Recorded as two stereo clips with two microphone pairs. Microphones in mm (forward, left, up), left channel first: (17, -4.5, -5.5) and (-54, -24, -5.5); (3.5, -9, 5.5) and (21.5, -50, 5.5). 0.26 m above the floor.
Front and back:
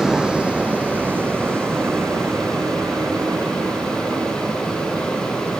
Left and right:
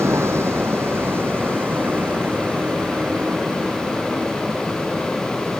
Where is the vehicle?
85° right; by 5.6 s 135° right.